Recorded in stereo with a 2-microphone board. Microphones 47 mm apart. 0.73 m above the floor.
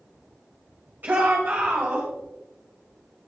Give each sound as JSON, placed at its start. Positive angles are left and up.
{"t": 1.0, "sound": "a shout", "side_deg": -45, "distance_m": 3.0}